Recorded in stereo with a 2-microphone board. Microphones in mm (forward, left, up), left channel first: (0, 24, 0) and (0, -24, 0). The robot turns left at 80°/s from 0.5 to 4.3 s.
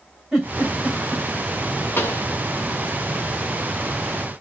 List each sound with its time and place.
0.3 s a giggle: 10° right (ahead or behind), 2.5 m; by 1.2 s 50° left (ahead or behind), 2.5 m
2.0 s a pop: 50° left (ahead or behind), 1.0 m; by 2.3 s 75° left (ahead or behind), 1.0 m